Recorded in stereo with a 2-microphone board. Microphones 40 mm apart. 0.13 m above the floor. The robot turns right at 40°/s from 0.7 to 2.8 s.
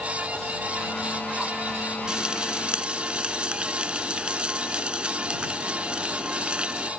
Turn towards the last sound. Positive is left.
turn(degrees=-25)  # may be behind; listen again after turning